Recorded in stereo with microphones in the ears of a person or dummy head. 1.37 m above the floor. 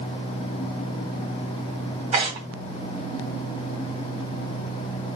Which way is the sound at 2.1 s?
30° right (ahead or behind).